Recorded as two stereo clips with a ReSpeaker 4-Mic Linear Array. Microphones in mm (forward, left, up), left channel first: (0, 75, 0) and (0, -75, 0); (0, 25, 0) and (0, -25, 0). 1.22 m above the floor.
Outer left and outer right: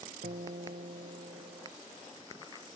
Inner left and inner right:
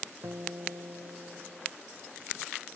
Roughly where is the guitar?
Right.